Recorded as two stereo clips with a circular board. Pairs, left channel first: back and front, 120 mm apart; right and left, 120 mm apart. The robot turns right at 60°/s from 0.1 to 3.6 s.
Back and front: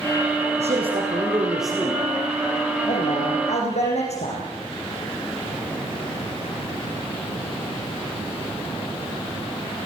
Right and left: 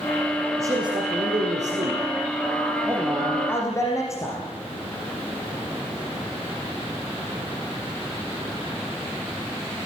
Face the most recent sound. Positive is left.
turn(degrees=-155)